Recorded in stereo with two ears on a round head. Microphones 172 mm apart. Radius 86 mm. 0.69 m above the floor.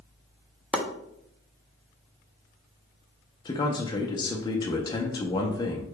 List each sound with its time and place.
0.7 s chopping: 5° left (ahead or behind), 0.6 m
3.5 s a man speaking: 20° left (ahead or behind), 0.5 m